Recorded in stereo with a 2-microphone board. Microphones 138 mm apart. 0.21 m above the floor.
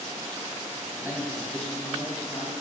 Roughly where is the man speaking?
Right.